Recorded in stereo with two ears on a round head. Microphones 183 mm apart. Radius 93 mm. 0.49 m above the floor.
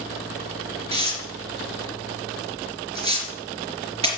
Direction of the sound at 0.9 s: 30° right (ahead or behind).